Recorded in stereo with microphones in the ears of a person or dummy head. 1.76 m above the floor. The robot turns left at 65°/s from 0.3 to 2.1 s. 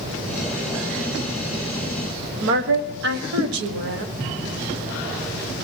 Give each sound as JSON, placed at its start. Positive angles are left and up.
{"t": 2.4, "sound": "a woman speaking", "side_deg": -80, "distance_m": 1.5}